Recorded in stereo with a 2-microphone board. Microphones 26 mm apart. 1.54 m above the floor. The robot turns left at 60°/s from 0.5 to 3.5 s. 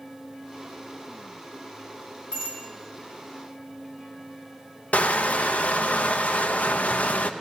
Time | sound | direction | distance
2.3 | a bicycle bell | 35° left (ahead or behind) | 6 m
4.9 | crushing | 65° left (ahead or behind) | 0.8 m